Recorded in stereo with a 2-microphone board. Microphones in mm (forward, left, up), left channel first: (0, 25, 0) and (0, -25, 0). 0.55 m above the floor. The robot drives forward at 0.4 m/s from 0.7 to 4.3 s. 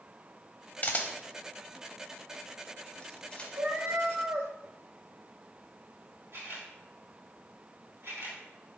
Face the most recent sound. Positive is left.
turn(degrees=-65)  # may be behind; listen again after turning